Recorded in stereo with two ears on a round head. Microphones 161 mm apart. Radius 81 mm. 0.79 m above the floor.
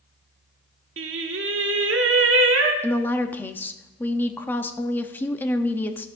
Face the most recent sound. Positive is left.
turn(degrees=10)  # may be behind; listen again after turning